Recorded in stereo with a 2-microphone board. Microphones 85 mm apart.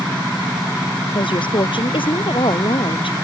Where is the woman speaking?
75° left (ahead or behind).